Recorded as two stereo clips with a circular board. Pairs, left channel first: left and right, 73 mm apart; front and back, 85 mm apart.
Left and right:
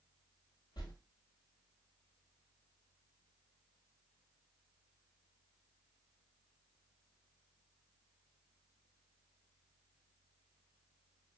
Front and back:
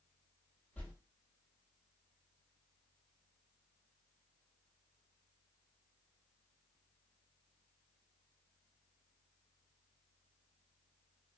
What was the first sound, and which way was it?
A whoosh, 70° left.